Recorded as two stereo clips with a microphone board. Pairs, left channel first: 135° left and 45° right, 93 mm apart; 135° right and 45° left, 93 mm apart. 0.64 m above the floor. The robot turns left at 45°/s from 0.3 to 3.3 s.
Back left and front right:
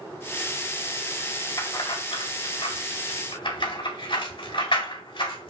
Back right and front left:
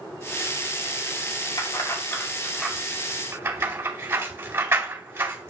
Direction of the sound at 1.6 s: 170° right.